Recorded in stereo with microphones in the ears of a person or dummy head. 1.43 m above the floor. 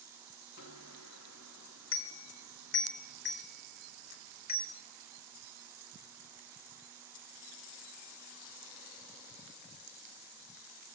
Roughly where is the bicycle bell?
Left.